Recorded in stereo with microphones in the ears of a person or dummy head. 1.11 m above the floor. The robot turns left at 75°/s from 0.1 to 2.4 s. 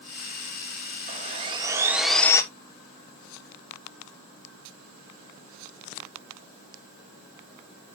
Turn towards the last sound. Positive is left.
turn(degrees=160)